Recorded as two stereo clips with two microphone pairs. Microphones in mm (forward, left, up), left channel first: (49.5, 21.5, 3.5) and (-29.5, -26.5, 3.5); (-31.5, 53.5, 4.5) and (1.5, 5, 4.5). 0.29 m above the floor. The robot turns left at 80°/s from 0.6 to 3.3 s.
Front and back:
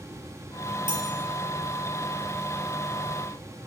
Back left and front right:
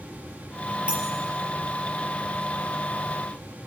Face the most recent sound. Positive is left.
turn(degrees=40)